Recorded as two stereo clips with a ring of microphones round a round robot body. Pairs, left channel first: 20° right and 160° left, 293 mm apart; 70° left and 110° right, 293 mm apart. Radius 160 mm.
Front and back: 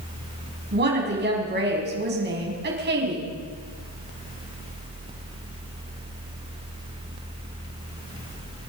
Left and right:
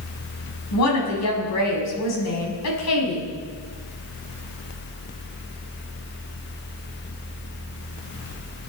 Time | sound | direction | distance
0.7 | a woman speaking | 100° left | 5 m